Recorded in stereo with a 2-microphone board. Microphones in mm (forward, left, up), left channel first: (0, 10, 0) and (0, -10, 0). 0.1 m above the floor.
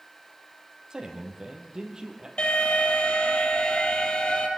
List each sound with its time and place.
0.9 s a man speaking: 35° right (ahead or behind), 4 m
2.4 s an alarm: 60° left (ahead or behind), 3.5 m